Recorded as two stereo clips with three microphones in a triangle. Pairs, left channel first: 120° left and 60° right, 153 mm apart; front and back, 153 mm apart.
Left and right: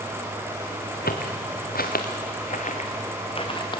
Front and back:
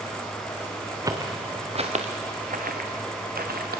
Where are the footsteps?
110° left, 2.5 m; by 3.8 s straight behind, 3.5 m.